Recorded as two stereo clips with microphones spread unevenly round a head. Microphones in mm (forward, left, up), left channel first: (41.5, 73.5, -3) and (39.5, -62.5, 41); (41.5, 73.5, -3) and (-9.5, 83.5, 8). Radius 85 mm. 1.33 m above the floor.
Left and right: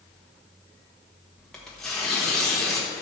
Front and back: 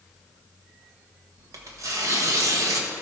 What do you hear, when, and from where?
1.4 s tearing paper: straight behind, 1.1 m